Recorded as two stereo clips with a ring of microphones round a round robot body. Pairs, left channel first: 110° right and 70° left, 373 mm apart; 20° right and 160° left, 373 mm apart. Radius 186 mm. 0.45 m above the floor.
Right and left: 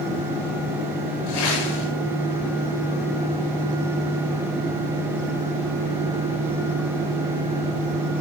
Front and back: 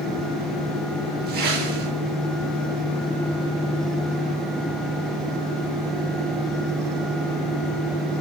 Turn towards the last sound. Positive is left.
turn(degrees=-135)